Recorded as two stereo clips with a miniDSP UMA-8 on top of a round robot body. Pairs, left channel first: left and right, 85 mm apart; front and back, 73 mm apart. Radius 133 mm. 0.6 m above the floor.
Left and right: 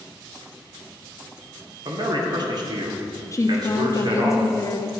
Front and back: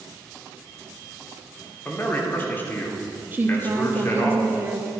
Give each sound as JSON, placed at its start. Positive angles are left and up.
{"t": 1.9, "sound": "a man speaking", "azimuth_deg": -60, "distance_m": 2.5}
{"t": 3.3, "sound": "a woman speaking", "azimuth_deg": 125, "distance_m": 1.3}